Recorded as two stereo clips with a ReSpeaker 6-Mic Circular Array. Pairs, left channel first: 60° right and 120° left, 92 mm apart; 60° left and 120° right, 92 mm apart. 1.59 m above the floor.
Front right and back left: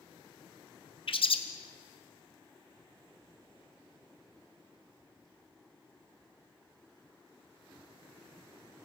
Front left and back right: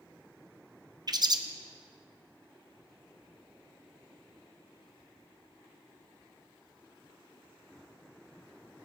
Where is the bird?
75° right, 0.8 m.